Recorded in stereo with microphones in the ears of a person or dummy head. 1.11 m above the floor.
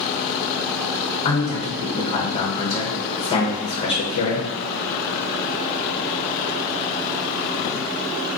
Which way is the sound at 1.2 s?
30° left (ahead or behind).